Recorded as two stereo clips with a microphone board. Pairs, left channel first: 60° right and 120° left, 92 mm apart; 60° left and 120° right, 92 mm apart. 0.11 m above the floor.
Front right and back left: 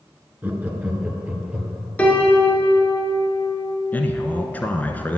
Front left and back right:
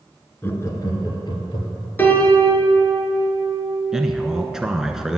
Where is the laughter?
80° left, 1.4 m; by 1.9 s 40° left, 3 m.